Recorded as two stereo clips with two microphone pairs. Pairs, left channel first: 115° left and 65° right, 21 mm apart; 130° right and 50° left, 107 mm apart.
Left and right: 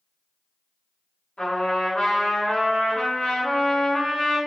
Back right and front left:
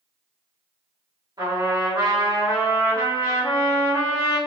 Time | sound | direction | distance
1.4 | a trumpet | 95° left | 1.7 m